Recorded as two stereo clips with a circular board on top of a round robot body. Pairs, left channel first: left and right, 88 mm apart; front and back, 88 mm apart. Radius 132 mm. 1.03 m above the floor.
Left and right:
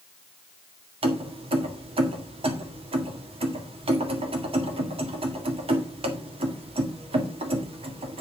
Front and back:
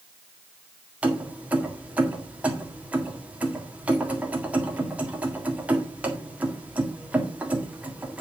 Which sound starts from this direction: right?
Keys jangling, at 1.0 s.